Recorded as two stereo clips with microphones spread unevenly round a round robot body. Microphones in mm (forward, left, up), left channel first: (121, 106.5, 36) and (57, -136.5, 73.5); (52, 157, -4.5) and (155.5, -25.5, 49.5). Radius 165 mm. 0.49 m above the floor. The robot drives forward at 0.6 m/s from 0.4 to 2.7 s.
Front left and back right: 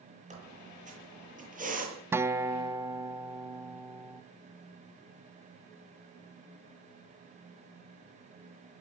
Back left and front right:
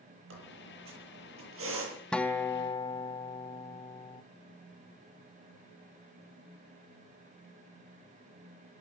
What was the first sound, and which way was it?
A squeak, 45° right.